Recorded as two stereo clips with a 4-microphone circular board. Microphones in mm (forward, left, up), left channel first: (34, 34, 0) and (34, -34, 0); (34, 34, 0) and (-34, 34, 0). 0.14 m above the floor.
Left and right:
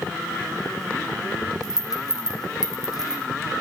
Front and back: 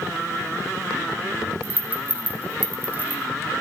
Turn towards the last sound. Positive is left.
turn(degrees=115)